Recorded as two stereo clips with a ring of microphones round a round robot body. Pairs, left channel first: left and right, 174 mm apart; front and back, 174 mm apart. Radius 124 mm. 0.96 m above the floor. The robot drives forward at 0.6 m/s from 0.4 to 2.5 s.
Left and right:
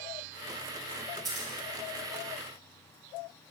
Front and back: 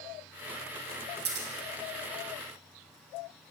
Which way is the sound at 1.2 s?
Straight behind.